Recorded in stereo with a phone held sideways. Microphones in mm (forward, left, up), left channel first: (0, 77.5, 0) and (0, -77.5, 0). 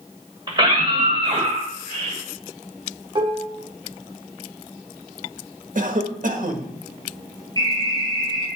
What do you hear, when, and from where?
0.5 s a scream: 30° right (ahead or behind), 3.5 m; by 2.2 s 45° right (ahead or behind), 4 m
3.1 s dishes clattering: 35° right (ahead or behind), 2 m
5.8 s a cough: 60° right (ahead or behind), 1.5 m
7.6 s an alarm: 25° left (ahead or behind), 6 m